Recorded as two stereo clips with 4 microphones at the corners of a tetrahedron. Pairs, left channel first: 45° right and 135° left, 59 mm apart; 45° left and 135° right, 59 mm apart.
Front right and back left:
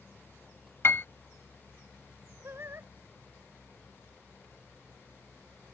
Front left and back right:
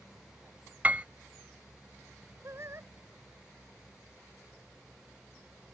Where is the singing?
Straight behind.